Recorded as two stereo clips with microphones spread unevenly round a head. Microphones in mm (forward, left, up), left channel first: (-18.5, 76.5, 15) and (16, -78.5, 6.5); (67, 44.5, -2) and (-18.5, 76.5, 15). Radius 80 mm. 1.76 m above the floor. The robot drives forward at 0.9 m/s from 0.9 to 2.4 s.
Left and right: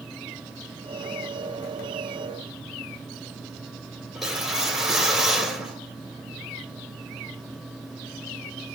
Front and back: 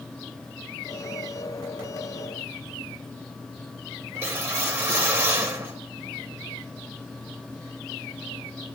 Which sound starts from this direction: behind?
A whoosh, at 4.2 s.